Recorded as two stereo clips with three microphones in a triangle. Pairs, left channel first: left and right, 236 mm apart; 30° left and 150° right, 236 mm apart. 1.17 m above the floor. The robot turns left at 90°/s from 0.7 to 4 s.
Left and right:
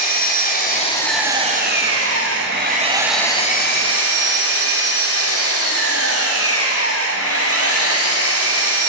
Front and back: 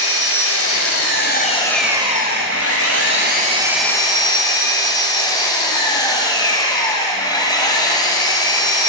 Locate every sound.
0.0 s an engine running: 40° left, 3 m; by 8.9 s 100° left, 3 m